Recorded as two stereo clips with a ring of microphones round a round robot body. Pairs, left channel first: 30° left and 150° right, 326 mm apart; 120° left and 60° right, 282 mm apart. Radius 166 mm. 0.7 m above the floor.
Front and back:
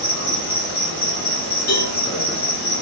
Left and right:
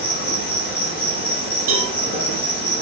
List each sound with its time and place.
0.0 s an insect: 110° left, 1.4 m
1.7 s a cowbell: 50° right, 0.6 m